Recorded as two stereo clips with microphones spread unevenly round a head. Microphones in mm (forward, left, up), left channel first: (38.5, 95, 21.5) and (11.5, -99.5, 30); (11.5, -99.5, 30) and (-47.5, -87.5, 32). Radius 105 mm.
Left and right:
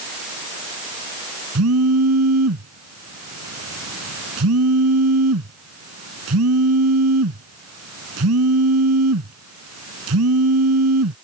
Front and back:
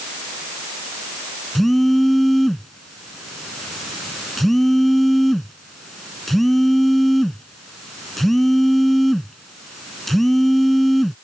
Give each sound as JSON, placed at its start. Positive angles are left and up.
{"t": 1.6, "sound": "a phone buzzing", "azimuth_deg": -100}